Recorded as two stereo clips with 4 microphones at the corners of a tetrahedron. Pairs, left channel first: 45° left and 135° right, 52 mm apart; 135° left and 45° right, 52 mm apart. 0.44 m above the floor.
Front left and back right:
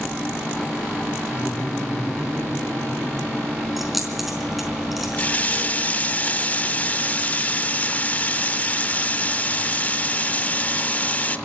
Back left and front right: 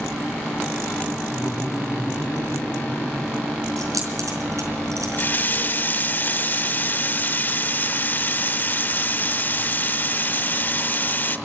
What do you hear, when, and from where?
1.3 s laughter: 95° left, 6.5 m; by 3.4 s 80° left, 6 m
3.8 s keys jangling: 50° right, 4.5 m
5.1 s a running tap: 95° left, 0.7 m